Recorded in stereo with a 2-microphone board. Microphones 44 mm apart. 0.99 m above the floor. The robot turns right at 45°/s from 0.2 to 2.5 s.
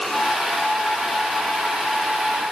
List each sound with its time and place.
Only background noise.